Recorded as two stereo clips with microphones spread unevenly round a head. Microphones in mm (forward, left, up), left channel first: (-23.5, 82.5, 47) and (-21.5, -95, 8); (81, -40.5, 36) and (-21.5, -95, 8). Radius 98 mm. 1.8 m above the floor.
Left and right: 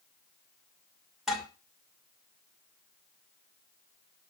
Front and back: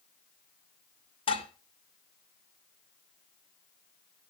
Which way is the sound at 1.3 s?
5° left.